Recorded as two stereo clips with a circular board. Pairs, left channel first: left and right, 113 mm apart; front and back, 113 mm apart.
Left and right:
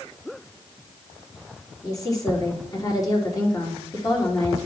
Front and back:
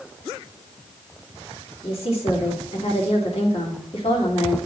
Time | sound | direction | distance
1.8 | a woman speaking | 35° left | 3 m